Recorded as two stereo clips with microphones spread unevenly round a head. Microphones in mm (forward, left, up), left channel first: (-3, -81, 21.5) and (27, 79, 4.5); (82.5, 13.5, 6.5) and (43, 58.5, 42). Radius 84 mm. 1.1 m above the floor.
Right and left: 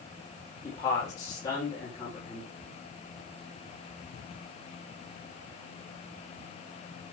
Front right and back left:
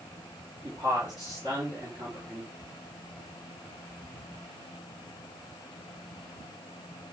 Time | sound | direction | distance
0.6 | a man speaking | 170° right | 4 m